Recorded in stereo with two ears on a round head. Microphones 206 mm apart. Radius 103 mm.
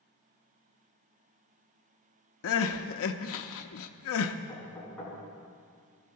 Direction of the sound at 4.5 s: 5° left (ahead or behind).